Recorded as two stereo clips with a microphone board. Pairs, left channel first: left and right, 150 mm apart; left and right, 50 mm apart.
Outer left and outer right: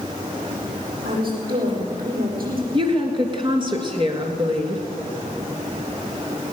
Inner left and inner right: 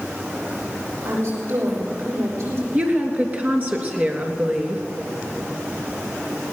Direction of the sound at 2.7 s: 35° right (ahead or behind).